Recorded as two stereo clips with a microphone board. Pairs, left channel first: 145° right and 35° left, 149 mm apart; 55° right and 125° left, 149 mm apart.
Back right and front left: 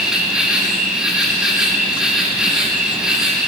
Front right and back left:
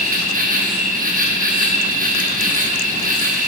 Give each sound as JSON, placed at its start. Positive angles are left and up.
{"t": 0.0, "sound": "an insect", "azimuth_deg": 120, "distance_m": 1.5}